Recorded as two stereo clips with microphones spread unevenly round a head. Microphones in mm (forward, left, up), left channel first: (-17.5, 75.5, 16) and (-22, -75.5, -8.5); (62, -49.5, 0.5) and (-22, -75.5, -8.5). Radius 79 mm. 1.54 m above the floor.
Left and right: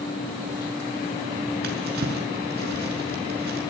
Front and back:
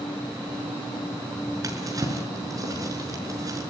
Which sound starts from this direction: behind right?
A drawer, at 1.6 s.